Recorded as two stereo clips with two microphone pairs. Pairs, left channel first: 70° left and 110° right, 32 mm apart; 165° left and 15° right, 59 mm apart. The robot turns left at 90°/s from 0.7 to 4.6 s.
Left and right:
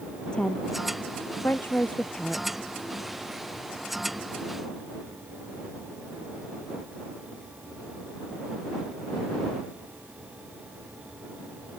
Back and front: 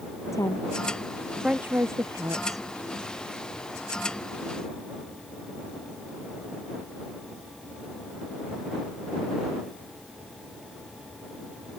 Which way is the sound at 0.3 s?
135° left.